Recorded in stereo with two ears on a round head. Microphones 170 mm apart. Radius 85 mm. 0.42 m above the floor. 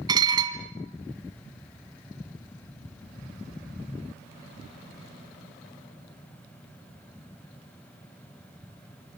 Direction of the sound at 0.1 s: 25° right (ahead or behind).